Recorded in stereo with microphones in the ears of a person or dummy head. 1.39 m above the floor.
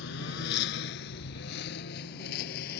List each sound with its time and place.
0.0 s a lawn mower: 60° left (ahead or behind); by 2.8 s 50° left (ahead or behind)